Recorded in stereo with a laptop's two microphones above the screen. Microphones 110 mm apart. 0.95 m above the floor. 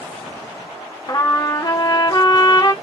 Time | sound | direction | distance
1.1 | a trumpet | 35° left (ahead or behind) | 0.8 m